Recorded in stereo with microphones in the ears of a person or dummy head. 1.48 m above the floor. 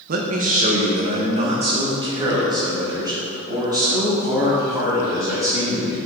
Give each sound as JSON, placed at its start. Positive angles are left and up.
{"t": 0.1, "sound": "a man speaking", "side_deg": -50, "distance_m": 1.0}